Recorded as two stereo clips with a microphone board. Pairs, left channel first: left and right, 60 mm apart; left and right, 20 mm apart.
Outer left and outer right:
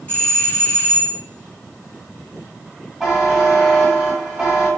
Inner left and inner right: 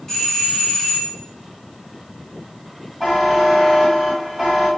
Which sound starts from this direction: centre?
A buzzer, at 3.0 s.